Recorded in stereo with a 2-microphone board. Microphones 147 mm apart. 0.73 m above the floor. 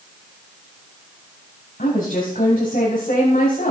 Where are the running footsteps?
I don't hear running footsteps.